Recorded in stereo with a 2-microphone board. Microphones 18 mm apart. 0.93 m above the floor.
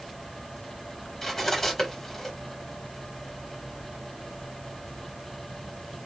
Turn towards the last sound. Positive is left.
turn(degrees=15)  # may be behind; listen again after turning